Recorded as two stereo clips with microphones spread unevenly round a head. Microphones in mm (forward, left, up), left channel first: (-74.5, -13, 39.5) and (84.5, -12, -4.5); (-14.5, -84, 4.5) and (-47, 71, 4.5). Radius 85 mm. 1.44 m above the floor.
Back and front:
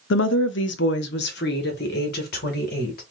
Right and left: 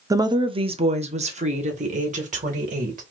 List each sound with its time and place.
0.1 s a woman speaking: 170° left, 0.5 m; by 3.0 s 140° left, 2 m